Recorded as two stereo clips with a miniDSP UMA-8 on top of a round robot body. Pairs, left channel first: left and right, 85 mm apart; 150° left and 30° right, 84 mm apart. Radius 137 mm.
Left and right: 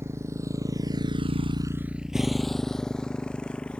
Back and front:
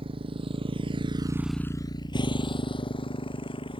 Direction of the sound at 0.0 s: 30° right.